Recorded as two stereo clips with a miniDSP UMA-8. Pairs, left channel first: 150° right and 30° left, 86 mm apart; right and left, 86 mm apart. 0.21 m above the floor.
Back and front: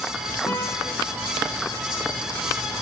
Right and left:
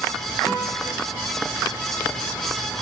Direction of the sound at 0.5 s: 160° right.